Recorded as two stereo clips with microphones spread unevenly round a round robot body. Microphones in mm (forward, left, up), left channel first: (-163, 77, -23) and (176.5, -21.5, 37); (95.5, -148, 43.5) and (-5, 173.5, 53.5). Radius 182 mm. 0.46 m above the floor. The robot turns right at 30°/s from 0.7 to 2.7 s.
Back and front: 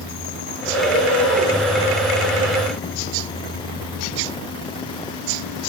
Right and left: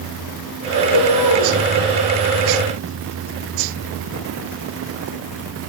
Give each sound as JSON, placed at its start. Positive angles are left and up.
{"t": 0.7, "sound": "a bird", "azimuth_deg": -120, "distance_m": 9.5}